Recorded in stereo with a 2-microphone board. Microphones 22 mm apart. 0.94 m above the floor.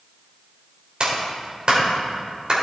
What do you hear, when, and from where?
1.0 s a clap: 40° right (ahead or behind), 3.5 m